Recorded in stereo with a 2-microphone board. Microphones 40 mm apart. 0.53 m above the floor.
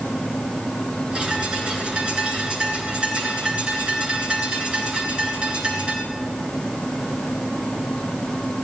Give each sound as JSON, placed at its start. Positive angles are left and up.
{"t": 1.1, "sound": "a bird", "side_deg": -30, "distance_m": 3.5}